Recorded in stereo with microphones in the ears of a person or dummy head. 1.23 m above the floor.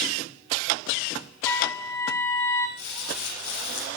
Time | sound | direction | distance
1.4 | a trumpet | 20° left (ahead or behind) | 6 m
2.8 | crumpling | 65° left (ahead or behind) | 7 m